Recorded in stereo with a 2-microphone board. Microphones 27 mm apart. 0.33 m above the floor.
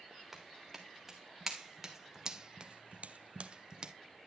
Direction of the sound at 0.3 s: 5° right (ahead or behind).